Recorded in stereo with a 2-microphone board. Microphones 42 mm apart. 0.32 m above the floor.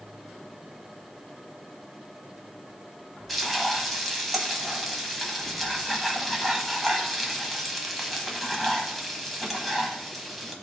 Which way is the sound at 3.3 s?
5° left (ahead or behind).